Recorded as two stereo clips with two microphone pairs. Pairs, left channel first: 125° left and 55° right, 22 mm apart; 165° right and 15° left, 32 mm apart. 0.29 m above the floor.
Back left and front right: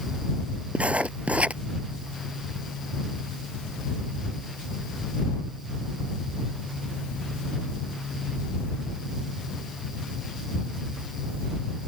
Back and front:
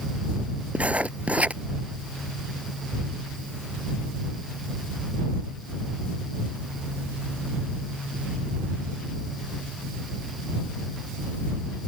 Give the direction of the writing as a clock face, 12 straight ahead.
1 o'clock.